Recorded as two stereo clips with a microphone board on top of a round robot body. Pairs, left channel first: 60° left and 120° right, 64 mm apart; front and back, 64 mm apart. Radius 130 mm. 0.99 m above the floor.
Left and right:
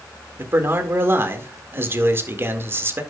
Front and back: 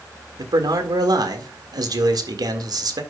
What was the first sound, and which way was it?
A man speaking, 175° right.